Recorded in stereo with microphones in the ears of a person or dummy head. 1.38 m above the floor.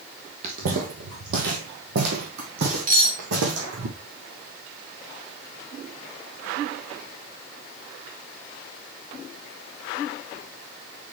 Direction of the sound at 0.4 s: 35° right (ahead or behind).